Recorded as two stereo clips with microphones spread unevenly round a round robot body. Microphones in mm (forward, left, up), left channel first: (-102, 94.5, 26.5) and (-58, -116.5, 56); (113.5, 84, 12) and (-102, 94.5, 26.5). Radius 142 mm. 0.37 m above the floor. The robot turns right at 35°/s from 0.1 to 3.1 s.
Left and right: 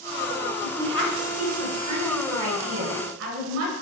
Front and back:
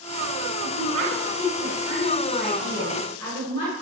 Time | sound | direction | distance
0.6 | a woman speaking | 160° right | 5 m